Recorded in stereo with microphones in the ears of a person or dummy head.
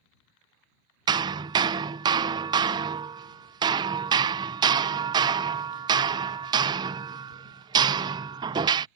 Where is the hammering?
25° right (ahead or behind).